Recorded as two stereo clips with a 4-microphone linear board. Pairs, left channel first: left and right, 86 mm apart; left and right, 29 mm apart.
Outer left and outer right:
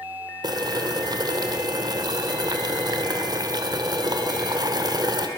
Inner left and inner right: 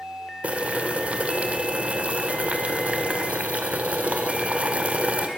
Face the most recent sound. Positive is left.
turn(degrees=-50)  # may be behind; listen again after turning